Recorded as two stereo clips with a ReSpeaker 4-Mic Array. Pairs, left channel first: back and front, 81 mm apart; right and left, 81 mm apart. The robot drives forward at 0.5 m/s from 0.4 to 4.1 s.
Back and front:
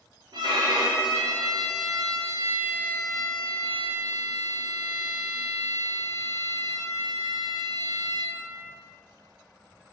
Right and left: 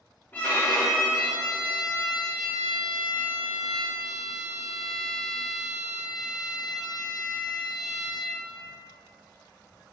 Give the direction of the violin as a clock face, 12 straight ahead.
1 o'clock.